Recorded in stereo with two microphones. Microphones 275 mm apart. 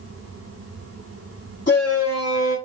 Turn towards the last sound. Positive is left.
turn(degrees=45)  # may be behind; listen again after turning